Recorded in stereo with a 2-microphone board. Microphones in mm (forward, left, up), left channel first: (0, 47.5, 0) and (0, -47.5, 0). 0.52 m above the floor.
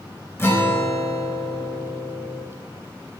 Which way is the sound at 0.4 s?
25° left (ahead or behind).